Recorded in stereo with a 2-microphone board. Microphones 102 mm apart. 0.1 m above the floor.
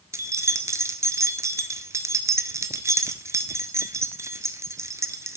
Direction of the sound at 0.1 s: 30° right (ahead or behind).